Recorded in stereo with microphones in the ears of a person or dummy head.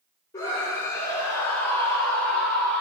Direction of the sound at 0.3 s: 25° left (ahead or behind).